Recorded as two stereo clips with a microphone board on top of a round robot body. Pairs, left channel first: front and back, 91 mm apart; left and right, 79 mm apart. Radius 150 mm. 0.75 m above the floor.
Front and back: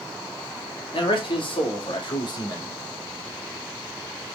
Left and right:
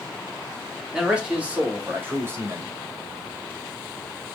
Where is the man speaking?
10° right, 3 m; by 2.7 s 40° right, 3 m.